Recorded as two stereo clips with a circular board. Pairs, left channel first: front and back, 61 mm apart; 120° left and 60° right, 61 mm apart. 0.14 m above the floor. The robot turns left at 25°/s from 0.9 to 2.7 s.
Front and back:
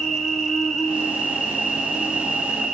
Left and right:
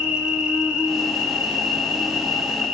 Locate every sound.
0.0 s an insect: 65° right, 0.9 m; by 2.7 s 110° right, 0.9 m